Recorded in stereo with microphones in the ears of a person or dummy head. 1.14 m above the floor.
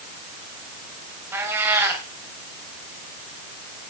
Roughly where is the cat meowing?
Centre.